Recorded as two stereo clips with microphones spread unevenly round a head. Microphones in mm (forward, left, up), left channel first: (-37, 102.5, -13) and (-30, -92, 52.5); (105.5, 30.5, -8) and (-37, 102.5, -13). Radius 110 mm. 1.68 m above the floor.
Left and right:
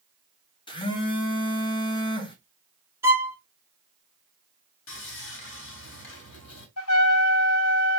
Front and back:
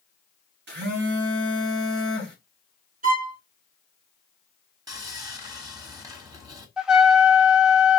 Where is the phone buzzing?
160° left, 1.3 m.